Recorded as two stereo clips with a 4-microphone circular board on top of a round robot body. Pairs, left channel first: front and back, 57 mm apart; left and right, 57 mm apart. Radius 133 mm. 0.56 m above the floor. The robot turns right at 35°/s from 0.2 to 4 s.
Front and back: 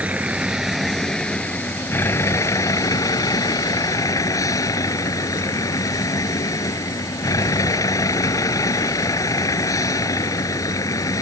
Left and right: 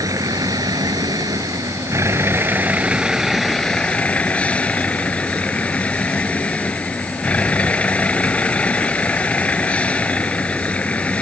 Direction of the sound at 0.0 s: 115° right.